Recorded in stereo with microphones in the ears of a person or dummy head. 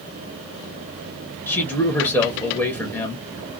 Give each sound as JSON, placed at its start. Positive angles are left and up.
{"t": 1.5, "sound": "a man speaking", "side_deg": 10, "distance_m": 0.6}